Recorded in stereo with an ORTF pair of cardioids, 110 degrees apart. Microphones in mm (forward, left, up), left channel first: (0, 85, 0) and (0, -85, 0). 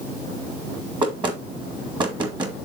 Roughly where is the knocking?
Ahead right.